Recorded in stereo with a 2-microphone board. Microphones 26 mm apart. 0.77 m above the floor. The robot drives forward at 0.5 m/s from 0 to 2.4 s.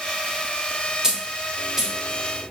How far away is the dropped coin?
About 0.7 m.